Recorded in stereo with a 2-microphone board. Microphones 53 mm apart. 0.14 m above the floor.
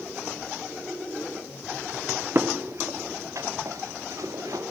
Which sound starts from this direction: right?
Footsteps, at 2.4 s.